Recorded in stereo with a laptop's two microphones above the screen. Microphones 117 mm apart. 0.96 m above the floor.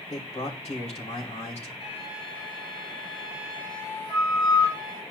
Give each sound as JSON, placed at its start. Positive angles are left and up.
{"t": 0.1, "sound": "a man speaking", "side_deg": 70, "distance_m": 3.0}
{"t": 1.8, "sound": "a flute", "side_deg": 45, "distance_m": 4.5}